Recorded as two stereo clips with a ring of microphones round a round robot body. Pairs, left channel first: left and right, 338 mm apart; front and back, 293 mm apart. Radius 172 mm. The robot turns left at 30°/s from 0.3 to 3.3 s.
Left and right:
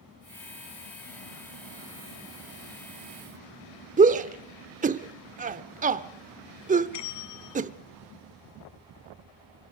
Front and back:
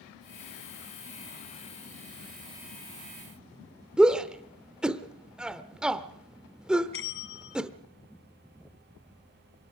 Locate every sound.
4.0 s a shout: 95° right, 0.8 m
6.9 s a bell: 50° left, 1.8 m